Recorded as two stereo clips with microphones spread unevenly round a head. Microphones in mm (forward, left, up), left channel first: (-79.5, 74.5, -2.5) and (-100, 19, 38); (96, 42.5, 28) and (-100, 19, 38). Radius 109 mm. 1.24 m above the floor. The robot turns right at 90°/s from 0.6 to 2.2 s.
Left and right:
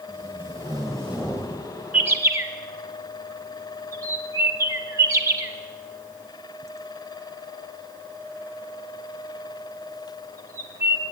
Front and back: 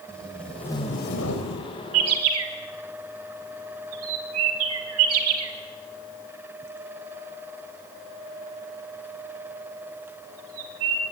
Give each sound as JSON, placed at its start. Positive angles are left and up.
{"t": 0.1, "sound": "tape being pulled", "azimuth_deg": -80, "distance_m": 3.0}
{"t": 1.9, "sound": "a bird", "azimuth_deg": -175, "distance_m": 3.5}